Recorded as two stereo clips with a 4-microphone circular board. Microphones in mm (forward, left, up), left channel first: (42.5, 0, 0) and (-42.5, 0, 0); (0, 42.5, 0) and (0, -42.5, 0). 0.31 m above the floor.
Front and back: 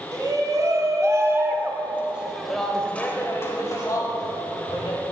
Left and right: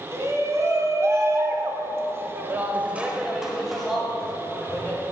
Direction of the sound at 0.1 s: 140° right.